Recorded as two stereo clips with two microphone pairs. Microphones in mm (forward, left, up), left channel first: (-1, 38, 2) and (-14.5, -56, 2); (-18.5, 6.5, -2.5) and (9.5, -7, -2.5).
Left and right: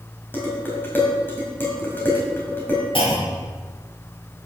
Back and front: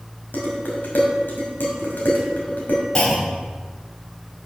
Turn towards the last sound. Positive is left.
turn(degrees=100)